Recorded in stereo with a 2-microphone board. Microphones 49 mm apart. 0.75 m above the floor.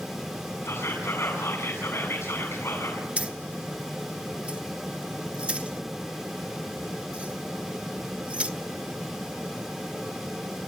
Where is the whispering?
60° left (ahead or behind), 7.5 m.